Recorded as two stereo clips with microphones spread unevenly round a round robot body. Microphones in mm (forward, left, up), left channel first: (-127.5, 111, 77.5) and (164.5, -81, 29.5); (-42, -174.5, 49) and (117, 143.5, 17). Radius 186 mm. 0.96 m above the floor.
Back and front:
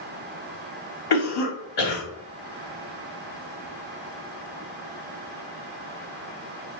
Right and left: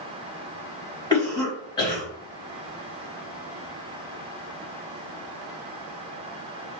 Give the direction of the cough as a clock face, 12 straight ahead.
7 o'clock.